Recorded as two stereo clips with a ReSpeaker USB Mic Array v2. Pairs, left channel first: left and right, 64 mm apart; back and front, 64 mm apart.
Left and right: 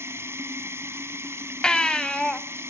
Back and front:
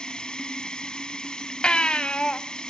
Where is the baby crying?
145° left, 1.1 m.